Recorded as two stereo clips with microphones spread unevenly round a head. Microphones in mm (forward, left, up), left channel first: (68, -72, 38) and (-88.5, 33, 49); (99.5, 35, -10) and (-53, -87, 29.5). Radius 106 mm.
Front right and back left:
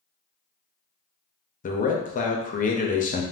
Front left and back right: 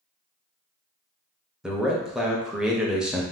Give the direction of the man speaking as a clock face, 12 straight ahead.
1 o'clock.